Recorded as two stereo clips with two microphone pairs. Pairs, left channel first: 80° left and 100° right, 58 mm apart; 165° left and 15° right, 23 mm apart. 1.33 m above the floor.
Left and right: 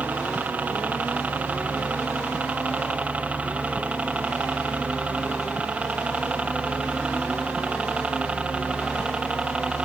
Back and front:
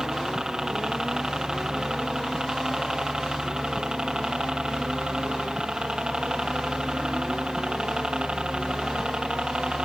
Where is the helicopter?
60° right; by 9.8 s 35° right.